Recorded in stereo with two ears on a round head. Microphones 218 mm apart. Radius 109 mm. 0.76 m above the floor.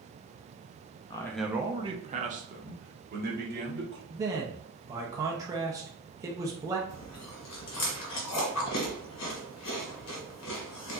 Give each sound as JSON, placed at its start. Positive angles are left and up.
{"t": 1.1, "sound": "a man speaking", "side_deg": 20, "distance_m": 0.5}
{"t": 4.1, "sound": "a man speaking", "side_deg": -15, "distance_m": 0.6}
{"t": 6.9, "sound": "chewing", "side_deg": 75, "distance_m": 1.5}